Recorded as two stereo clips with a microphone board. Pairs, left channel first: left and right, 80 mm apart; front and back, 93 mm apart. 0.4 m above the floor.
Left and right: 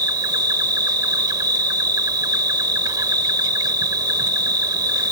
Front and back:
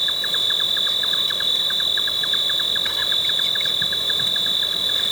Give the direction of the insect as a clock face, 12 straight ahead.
3 o'clock.